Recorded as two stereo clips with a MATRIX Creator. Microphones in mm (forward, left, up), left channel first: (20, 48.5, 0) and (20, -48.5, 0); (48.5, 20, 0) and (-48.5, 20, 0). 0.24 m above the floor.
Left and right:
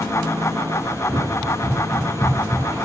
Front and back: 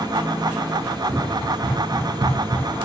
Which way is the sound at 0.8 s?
170° left.